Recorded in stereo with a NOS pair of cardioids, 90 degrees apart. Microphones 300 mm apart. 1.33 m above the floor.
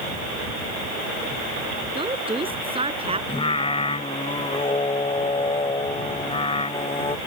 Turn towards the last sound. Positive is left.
turn(degrees=20)